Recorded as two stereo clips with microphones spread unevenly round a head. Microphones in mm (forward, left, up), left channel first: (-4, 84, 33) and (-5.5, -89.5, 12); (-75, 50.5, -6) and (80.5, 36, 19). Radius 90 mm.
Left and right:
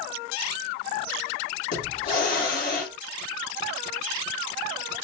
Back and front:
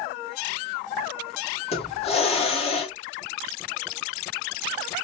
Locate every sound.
1.7 s a hiss: 125° left, 2 m